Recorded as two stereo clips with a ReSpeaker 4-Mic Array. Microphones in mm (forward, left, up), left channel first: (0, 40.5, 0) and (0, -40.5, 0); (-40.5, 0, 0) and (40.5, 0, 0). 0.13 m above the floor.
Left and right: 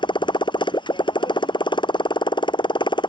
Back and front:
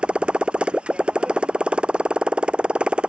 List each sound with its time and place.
0.0 s a motorcycle: 75° left